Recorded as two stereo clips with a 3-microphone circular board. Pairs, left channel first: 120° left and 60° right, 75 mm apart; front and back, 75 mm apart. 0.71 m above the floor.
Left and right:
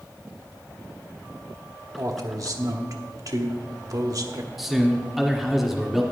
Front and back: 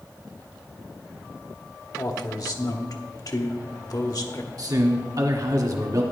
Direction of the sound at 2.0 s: 30° right.